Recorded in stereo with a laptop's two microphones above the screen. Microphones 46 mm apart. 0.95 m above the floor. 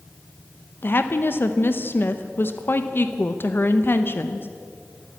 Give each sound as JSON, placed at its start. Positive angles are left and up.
{"t": 0.8, "sound": "a woman speaking", "side_deg": 45, "distance_m": 0.6}